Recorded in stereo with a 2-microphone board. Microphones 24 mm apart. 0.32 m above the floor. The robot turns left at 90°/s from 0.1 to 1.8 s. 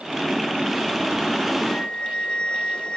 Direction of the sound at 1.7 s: 35° left (ahead or behind).